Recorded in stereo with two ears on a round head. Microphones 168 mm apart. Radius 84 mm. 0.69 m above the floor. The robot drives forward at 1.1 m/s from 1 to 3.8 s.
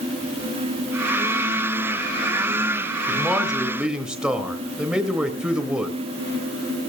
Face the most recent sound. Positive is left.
turn(degrees=-5)  # may be behind; listen again after turning